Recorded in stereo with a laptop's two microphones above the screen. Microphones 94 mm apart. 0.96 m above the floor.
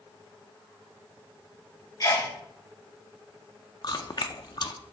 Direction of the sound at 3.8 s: 50° left (ahead or behind).